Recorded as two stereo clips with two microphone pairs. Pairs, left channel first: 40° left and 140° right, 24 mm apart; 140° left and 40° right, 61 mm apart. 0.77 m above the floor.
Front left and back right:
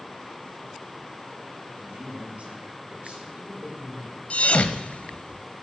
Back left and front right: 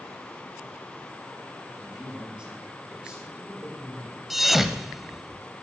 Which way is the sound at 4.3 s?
50° left.